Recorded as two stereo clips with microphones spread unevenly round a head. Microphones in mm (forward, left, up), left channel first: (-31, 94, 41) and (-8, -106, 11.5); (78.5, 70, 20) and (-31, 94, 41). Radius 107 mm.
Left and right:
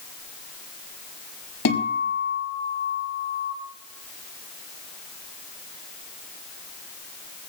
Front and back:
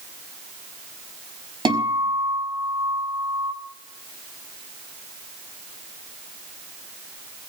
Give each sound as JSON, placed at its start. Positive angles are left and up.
{"t": 1.6, "sound": "a guitar", "azimuth_deg": 120, "distance_m": 5.5}